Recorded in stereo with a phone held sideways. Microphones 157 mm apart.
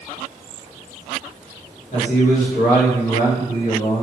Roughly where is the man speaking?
Left.